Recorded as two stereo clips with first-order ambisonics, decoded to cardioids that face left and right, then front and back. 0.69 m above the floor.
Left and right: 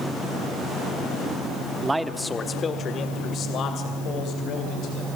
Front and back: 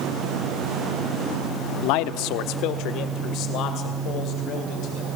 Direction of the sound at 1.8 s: 15° right.